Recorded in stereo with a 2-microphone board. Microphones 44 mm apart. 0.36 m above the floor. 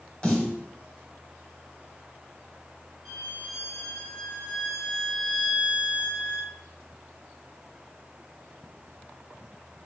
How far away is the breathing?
No breathing in this recording.